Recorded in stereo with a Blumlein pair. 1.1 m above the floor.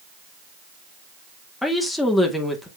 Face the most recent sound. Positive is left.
turn(degrees=5)